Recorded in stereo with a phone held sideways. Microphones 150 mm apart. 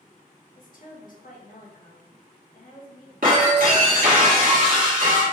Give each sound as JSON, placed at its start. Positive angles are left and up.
{"t": 0.6, "sound": "a woman speaking", "side_deg": 65, "distance_m": 1.4}
{"t": 3.2, "sound": "breaking glass", "side_deg": -70, "distance_m": 1.4}